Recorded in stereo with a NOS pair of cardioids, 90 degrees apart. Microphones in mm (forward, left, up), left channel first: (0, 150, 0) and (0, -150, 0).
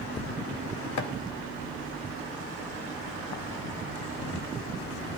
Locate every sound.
1.0 s chopping: 65° left, 1.6 m